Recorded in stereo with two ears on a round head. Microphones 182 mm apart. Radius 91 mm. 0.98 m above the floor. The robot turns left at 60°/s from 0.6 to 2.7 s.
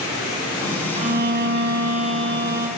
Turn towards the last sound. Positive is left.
turn(degrees=-130)